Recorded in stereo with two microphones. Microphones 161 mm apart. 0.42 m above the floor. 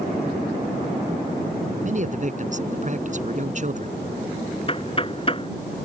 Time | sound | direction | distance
1.8 | a man speaking | 50° right (ahead or behind) | ?
4.7 | knocking | 35° left (ahead or behind) | ?